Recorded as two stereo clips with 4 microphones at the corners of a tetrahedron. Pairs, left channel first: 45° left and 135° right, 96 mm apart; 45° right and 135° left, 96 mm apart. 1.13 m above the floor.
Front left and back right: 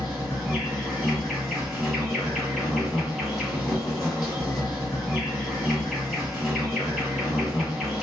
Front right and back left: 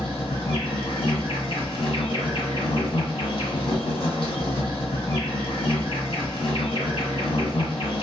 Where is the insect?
55° right, 1.9 m.